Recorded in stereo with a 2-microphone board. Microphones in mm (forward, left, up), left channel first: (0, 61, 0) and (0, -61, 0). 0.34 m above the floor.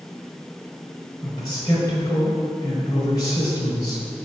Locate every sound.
1.2 s a man speaking: 35° left (ahead or behind), 1.7 m